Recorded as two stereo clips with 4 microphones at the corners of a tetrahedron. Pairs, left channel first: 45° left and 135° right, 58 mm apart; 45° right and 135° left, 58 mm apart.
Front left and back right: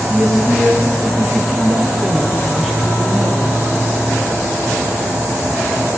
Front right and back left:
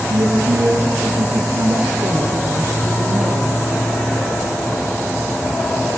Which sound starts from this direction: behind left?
A woman speaking, at 0.1 s.